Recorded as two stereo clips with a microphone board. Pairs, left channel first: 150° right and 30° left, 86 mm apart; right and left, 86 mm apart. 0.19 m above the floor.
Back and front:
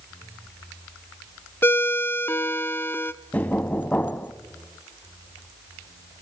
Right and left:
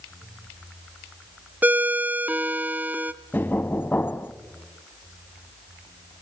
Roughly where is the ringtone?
Behind left.